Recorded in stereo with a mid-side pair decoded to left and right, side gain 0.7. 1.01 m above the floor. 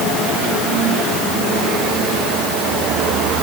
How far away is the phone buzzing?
No phone buzzing in this recording.